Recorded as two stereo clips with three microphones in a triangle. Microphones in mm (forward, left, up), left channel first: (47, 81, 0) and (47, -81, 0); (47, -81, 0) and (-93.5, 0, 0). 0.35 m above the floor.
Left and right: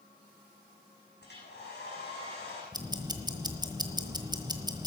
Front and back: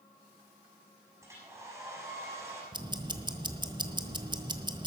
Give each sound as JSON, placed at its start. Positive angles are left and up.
{"t": 1.2, "sound": "a hair dryer", "azimuth_deg": 80, "distance_m": 5.5}
{"t": 2.7, "sound": "ticking", "azimuth_deg": -150, "distance_m": 1.2}